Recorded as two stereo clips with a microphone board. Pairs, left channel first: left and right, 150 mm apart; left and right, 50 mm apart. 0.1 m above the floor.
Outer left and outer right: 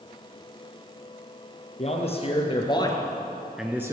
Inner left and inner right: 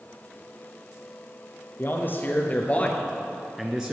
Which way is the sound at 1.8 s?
45° left (ahead or behind).